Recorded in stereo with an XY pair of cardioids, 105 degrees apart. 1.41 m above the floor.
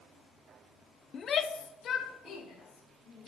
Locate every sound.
1.1 s a shout: 50° left, 0.5 m; by 3.3 s 70° left, 2 m